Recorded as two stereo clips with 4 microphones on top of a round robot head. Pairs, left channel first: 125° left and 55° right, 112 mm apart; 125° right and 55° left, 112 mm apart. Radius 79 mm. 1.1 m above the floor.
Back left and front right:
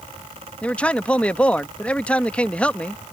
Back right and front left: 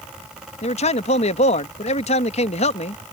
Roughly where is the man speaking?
Behind right.